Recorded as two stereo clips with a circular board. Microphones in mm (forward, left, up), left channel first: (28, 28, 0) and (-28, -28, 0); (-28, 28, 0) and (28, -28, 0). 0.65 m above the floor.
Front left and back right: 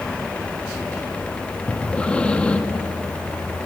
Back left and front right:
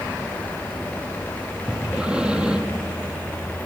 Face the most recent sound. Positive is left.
turn(degrees=5)